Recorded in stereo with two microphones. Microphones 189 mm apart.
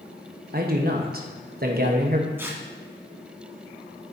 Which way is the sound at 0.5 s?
55° right (ahead or behind).